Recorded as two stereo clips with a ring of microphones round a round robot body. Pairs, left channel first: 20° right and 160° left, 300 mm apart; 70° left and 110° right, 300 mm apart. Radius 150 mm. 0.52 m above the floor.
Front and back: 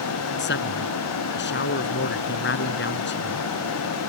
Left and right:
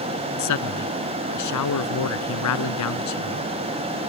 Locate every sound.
0.4 s a man speaking: 35° left